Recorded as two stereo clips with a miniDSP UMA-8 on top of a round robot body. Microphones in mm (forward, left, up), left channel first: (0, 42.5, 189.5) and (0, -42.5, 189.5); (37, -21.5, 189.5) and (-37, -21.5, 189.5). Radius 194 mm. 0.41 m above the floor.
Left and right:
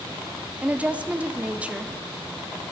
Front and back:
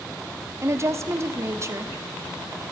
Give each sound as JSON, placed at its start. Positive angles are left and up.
{"t": 0.6, "sound": "a woman speaking", "azimuth_deg": -160, "distance_m": 1.4}